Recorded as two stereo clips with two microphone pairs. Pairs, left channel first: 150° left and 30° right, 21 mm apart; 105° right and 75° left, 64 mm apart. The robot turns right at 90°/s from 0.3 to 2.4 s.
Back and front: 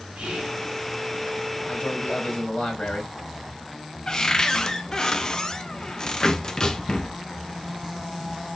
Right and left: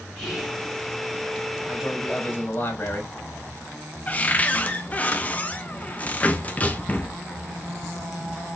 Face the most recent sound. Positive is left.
turn(degrees=-160)